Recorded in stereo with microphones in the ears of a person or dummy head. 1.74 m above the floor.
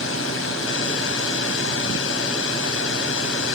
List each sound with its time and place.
0.0 s a drone: 85° left